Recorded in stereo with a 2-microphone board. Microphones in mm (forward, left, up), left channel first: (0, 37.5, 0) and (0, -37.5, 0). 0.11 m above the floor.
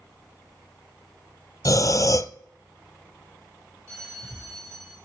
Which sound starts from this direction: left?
Breathing, at 1.6 s.